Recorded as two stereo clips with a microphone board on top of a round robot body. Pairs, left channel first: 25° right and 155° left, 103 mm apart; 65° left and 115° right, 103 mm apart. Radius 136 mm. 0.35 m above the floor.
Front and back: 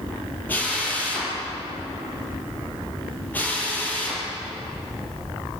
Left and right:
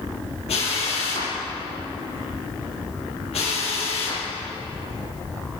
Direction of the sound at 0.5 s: 50° left.